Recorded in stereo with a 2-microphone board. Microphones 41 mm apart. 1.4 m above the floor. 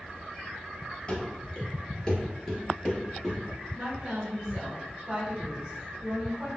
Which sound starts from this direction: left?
Running footsteps, at 1.1 s.